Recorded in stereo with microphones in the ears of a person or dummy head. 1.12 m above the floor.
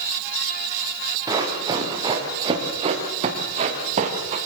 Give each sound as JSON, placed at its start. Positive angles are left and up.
{"t": 1.3, "sound": "running footsteps", "side_deg": -20, "distance_m": 6.5}